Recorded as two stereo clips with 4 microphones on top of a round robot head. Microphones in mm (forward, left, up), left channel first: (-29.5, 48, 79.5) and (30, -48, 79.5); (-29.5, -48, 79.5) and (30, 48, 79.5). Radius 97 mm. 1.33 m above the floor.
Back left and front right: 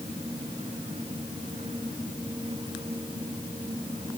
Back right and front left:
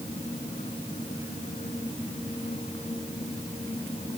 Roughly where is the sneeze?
No sneeze in this recording.